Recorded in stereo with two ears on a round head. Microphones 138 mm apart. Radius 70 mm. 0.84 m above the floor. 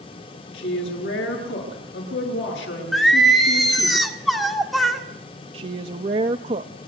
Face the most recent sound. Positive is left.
turn(degrees=-40)  # may be behind; listen again after turning